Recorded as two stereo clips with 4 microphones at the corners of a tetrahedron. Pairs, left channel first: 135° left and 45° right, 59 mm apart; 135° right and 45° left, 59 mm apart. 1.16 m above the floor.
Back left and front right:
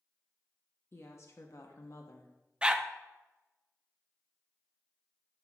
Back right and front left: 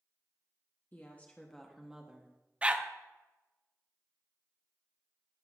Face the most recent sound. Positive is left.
turn(degrees=10)